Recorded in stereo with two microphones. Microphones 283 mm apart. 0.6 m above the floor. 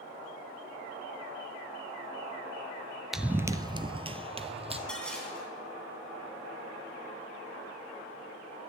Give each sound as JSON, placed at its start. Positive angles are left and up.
{"t": 3.1, "sound": "running footsteps", "side_deg": 0, "distance_m": 0.5}
{"t": 4.9, "sound": "dishes clattering", "side_deg": 5, "distance_m": 3.5}